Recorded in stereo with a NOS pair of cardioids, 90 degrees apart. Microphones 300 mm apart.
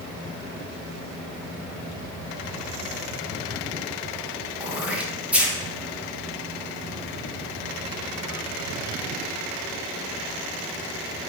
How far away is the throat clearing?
About 0.7 m.